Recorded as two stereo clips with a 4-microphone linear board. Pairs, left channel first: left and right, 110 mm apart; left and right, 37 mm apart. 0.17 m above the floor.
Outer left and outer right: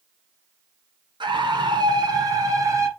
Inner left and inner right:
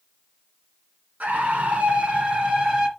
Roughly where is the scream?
Right.